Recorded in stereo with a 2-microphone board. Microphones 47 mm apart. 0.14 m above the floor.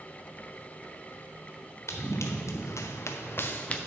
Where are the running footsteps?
75° left (ahead or behind), 2.0 m; by 3.8 s 20° left (ahead or behind), 1.0 m.